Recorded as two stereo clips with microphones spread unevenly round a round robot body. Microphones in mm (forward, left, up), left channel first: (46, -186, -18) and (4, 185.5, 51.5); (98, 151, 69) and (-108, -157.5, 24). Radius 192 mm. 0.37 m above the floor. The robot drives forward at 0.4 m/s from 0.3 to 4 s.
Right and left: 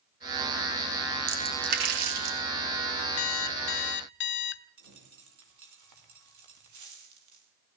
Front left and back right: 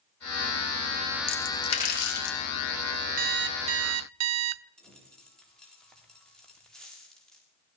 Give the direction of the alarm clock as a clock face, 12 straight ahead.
2 o'clock.